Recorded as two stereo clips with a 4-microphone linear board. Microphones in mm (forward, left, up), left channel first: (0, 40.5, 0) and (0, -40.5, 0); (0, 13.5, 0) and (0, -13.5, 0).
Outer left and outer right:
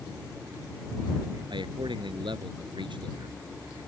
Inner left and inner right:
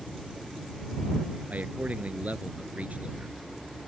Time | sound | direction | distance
1.5 | a man speaking | 85° right | ?